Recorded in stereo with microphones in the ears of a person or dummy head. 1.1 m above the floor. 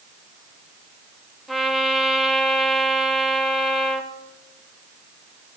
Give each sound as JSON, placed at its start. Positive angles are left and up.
{"t": 1.5, "sound": "a trumpet", "side_deg": 5, "distance_m": 1.4}